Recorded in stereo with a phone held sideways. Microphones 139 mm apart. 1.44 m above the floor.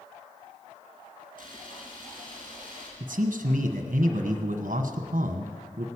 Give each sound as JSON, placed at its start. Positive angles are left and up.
{"t": 1.4, "sound": "a camera shutter", "side_deg": 35, "distance_m": 5.0}
{"t": 3.0, "sound": "a man speaking", "side_deg": -55, "distance_m": 1.1}